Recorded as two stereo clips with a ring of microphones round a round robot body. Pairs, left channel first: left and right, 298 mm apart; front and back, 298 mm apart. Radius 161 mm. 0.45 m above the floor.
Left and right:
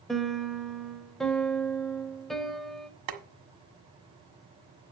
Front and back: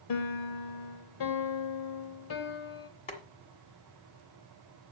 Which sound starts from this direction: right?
Boiling, at 3.1 s.